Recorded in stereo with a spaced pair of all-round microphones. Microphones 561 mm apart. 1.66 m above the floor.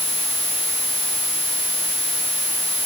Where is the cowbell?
I don't hear a cowbell.